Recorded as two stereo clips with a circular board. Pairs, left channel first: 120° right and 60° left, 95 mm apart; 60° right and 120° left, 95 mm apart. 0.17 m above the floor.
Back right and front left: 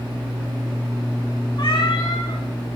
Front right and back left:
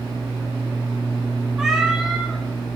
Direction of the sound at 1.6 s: 155° right.